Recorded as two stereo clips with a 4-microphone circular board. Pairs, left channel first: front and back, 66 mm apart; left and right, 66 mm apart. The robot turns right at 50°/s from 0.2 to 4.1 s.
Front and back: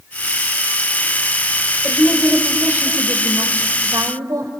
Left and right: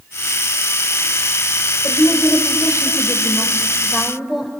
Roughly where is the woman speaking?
Left.